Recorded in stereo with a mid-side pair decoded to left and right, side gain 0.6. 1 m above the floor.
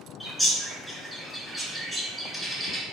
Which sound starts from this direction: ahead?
A bird, at 0.2 s.